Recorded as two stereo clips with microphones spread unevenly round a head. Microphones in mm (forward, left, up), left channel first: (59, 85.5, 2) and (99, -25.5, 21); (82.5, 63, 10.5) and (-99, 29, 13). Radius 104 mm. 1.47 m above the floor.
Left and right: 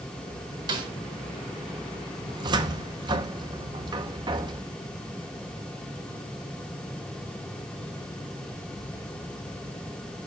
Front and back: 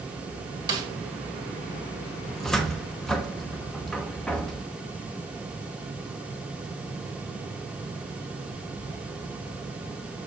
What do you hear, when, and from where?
0.7 s a snare drum: 105° right, 1.7 m
2.3 s a cupboard door: 75° right, 0.9 m